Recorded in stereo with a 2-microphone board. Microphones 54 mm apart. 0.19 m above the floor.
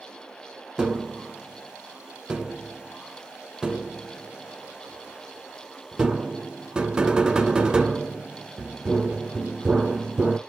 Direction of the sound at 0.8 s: 15° right (ahead or behind).